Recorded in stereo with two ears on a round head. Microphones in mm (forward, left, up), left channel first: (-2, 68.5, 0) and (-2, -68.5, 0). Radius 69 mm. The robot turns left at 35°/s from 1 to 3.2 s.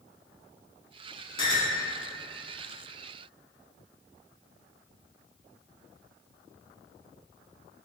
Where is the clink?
30° left (ahead or behind), 0.9 m; by 1.8 s 20° left (ahead or behind), 0.9 m.